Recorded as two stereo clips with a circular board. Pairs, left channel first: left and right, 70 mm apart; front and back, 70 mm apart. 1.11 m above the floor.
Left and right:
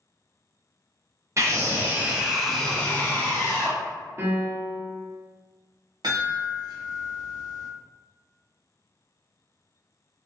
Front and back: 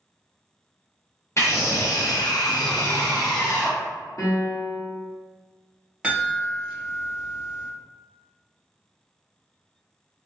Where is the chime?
100° right, 0.9 m.